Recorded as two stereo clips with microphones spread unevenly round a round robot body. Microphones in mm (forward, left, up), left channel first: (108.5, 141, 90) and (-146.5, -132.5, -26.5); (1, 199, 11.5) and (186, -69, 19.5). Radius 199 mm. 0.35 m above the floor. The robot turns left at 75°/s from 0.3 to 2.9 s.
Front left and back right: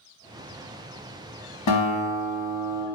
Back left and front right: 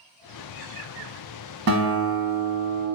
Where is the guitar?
5° right, 1.1 m; by 2.9 s 95° right, 1.1 m.